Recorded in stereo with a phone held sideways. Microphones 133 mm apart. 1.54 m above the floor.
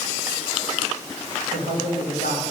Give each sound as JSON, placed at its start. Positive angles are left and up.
{"t": 1.5, "sound": "a man speaking", "side_deg": 75, "distance_m": 4.5}